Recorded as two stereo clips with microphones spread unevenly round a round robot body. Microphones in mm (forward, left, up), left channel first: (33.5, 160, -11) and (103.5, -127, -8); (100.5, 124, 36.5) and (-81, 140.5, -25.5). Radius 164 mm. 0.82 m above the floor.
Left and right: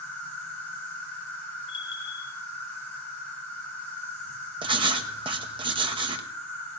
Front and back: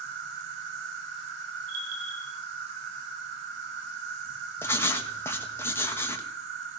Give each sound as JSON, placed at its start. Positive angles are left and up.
{"t": 0.0, "sound": "an insect", "azimuth_deg": -170, "distance_m": 3.5}
{"t": 1.7, "sound": "a bell", "azimuth_deg": 180, "distance_m": 4.5}
{"t": 4.6, "sound": "writing", "azimuth_deg": -115, "distance_m": 1.0}